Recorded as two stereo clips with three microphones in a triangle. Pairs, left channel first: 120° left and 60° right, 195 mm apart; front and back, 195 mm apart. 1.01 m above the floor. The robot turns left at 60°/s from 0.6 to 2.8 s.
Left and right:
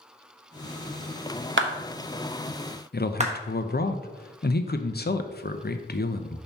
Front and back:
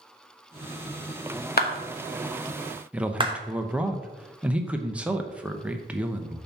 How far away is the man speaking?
About 0.6 m.